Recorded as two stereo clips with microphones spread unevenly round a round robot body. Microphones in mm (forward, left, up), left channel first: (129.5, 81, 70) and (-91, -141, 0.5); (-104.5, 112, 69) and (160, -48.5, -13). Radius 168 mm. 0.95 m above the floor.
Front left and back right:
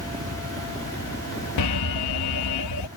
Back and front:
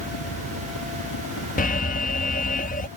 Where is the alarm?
80° left.